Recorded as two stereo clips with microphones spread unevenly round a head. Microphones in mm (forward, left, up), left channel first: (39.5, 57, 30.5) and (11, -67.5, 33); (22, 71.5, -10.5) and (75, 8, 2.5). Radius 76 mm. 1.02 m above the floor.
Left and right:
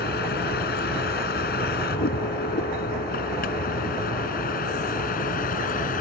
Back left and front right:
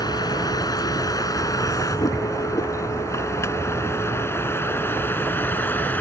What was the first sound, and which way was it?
A vehicle, 90° left.